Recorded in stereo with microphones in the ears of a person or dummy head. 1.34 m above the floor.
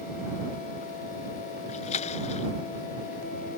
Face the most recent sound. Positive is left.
turn(degrees=45)  # may be behind; listen again after turning